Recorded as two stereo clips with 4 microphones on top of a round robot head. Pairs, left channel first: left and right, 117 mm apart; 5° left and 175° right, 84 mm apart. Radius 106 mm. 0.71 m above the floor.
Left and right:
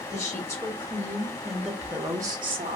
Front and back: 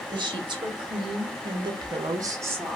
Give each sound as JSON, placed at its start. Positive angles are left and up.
{"t": 0.1, "sound": "a woman speaking", "azimuth_deg": 155, "distance_m": 1.5}